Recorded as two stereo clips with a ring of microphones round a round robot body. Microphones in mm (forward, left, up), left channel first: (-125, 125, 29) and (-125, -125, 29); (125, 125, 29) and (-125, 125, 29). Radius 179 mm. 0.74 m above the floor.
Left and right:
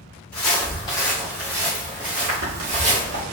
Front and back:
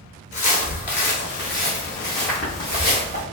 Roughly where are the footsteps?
Ahead left.